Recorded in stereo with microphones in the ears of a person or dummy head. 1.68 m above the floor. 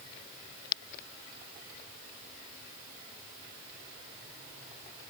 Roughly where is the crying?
No crying in this recording.